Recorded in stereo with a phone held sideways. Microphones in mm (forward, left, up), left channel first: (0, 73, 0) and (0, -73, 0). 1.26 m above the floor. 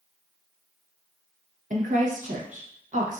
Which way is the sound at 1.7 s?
60° right (ahead or behind).